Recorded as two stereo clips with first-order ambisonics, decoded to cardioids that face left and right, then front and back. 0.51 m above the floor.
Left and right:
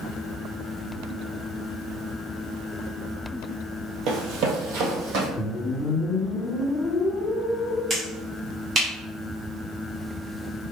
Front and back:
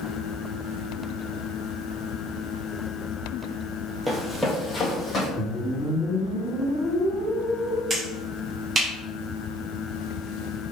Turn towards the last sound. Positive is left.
turn(degrees=-135)